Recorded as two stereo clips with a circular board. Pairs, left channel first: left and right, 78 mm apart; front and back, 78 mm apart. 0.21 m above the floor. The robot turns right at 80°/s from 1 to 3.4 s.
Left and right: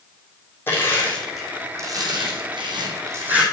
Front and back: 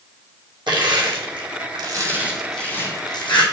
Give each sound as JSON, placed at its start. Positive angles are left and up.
{"t": 0.7, "sound": "crushing", "azimuth_deg": 155, "distance_m": 1.9}